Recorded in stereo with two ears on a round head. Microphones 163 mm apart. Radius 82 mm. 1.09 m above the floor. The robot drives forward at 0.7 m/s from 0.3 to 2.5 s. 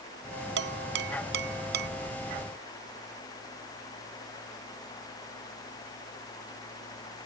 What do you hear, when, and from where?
0.6 s dishes clattering: 70° right (ahead or behind); by 1.9 s 65° right (ahead or behind)